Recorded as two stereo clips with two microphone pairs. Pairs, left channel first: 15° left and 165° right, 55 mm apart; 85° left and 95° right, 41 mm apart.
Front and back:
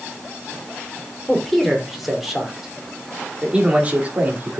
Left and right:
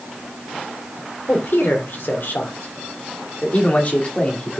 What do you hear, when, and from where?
1.3 s a man speaking: 100° left, 3.5 m; by 4.6 s 145° left, 2.5 m